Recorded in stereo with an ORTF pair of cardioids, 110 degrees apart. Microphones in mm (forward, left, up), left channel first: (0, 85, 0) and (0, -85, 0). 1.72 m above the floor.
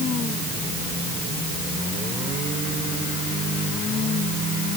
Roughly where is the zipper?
No zipper in this recording.